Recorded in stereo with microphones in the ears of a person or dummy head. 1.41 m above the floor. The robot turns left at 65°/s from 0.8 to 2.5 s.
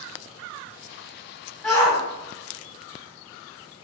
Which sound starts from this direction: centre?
A shout, at 1.6 s.